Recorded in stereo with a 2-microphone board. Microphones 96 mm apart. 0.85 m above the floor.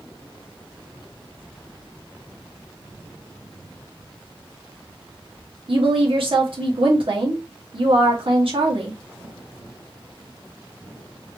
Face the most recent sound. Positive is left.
turn(degrees=-65)  # may be behind; listen again after turning